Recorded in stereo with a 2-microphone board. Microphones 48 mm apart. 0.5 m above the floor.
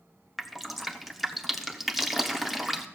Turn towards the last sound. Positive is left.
turn(degrees=0)  # may be behind; listen again after turning